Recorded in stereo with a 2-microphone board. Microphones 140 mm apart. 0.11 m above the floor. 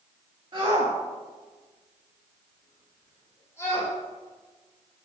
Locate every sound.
0.5 s a shout: 40° right (ahead or behind), 2.0 m; by 3.9 s 20° left (ahead or behind), 4.5 m